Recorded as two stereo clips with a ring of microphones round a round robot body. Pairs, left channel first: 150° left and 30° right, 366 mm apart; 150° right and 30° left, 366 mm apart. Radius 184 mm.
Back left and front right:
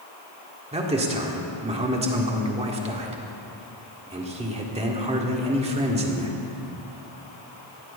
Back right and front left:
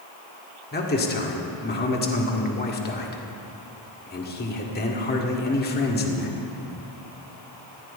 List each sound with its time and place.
0.7 s a man speaking: 95° right, 1.7 m